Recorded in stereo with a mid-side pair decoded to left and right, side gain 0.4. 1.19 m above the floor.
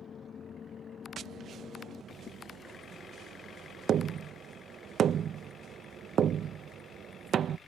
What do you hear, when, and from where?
1.2 s tapping: 65° right